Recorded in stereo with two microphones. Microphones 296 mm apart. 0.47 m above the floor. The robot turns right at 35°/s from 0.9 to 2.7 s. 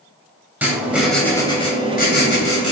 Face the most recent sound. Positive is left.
turn(degrees=55)